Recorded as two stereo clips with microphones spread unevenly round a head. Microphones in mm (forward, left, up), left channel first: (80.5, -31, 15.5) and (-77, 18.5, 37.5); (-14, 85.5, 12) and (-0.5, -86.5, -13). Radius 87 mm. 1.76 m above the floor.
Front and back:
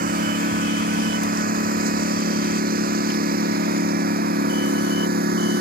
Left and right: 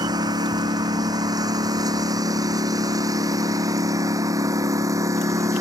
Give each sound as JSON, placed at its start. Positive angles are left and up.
{"t": 0.0, "sound": "a lawn mower", "azimuth_deg": -155}